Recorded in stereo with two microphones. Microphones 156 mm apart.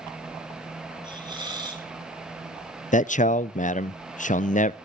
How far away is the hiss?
About 3 m.